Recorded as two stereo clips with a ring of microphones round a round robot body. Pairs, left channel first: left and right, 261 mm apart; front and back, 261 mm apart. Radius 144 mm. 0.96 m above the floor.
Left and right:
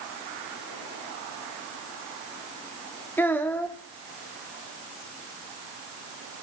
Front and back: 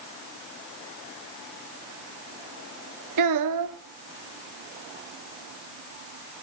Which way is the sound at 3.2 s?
175° left.